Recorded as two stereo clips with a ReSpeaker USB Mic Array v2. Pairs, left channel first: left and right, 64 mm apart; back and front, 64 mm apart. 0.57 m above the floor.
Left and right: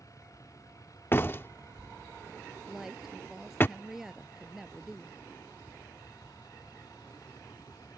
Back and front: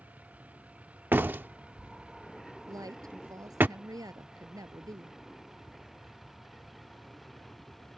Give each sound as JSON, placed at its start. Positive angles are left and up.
{"t": 0.0, "sound": "a vehicle", "azimuth_deg": 65}
{"t": 1.1, "sound": "a door slam", "azimuth_deg": 50}
{"t": 2.7, "sound": "a woman speaking", "azimuth_deg": -5}